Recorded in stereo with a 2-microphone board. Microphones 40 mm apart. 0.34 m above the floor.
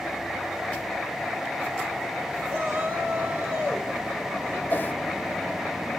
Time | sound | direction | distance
2.5 | a shout | 70° right (ahead or behind) | 4.5 m
4.7 | a whoosh | 40° left (ahead or behind) | 1.7 m